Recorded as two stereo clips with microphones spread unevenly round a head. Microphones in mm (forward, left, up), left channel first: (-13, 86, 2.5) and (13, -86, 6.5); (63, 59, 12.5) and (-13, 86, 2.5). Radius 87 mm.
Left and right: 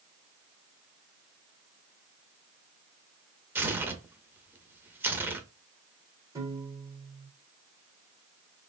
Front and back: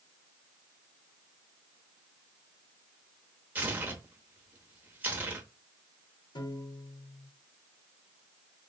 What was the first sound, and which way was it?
Tearing paper, 140° right.